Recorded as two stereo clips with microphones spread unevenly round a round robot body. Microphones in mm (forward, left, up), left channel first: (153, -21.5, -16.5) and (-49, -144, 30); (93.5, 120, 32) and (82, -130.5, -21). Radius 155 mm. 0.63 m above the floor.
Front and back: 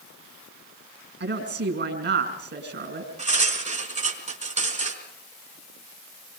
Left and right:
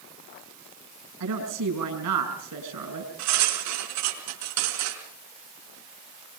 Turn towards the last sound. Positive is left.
turn(degrees=-90)